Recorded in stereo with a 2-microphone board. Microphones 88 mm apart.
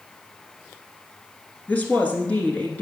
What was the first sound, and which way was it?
A woman speaking, 15° left (ahead or behind).